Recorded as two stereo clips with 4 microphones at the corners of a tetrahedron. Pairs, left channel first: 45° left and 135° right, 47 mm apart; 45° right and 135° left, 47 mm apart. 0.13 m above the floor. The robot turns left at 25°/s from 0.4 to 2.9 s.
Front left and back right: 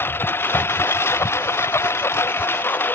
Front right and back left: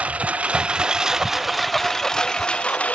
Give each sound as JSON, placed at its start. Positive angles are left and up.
{"t": 0.0, "sound": "a lawn mower", "azimuth_deg": 75}